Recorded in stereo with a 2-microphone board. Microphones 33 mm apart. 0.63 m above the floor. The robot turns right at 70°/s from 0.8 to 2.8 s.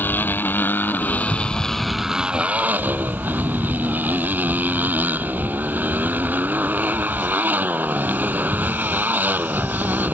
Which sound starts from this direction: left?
A motorcycle, at 0.0 s.